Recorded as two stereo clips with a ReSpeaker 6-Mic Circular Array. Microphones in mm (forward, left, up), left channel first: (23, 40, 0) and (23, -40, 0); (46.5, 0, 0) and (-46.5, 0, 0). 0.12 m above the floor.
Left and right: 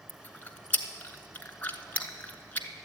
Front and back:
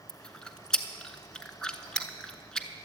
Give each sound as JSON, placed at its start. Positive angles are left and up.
{"t": 0.1, "sound": "chewing", "azimuth_deg": 70, "distance_m": 0.9}